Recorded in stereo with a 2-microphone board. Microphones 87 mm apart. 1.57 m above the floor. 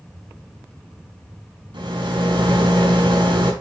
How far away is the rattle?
About 4 m.